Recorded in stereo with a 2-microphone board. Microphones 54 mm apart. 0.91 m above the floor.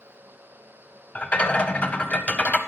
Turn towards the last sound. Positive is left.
turn(degrees=25)  # may be behind; listen again after turning